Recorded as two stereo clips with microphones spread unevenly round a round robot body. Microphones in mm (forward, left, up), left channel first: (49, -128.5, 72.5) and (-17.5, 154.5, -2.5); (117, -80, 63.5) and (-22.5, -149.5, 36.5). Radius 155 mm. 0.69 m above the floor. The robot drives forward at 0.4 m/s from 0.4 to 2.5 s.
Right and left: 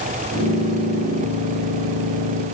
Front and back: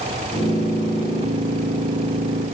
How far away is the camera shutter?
I don't hear a camera shutter.